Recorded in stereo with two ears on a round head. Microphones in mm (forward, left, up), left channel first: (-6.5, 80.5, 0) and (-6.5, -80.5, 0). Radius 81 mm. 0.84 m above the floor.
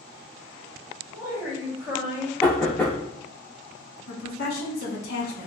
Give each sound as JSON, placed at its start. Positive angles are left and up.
{"t": 1.1, "sound": "a woman speaking", "side_deg": -10, "distance_m": 1.5}
{"t": 2.4, "sound": "knocking", "side_deg": 10, "distance_m": 1.5}
{"t": 4.1, "sound": "a woman speaking", "side_deg": 55, "distance_m": 1.1}